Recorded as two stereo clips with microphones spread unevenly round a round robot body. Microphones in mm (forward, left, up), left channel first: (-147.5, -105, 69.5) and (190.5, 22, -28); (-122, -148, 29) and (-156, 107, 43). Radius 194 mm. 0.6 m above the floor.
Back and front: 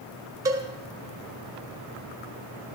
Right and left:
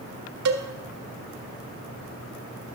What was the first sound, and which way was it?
A cowbell, 95° left.